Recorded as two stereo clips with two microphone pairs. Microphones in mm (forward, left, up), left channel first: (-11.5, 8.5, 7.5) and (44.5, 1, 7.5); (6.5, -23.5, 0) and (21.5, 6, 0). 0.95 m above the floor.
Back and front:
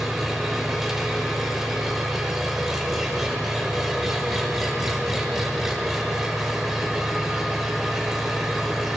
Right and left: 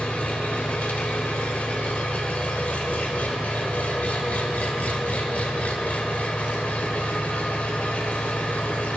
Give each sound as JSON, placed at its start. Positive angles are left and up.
{"t": 0.0, "sound": "an engine running", "azimuth_deg": -90, "distance_m": 1.0}